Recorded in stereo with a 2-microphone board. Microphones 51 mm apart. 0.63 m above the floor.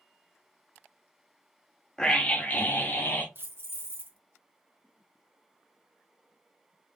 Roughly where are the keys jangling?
Right.